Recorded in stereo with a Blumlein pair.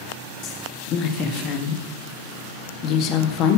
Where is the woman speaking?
35° left, 1.7 m.